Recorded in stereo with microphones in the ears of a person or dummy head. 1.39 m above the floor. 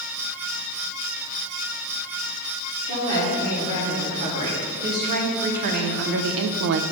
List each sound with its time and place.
2.9 s a woman speaking: 45° right (ahead or behind), 3 m; by 6.8 s 55° right (ahead or behind), 0.5 m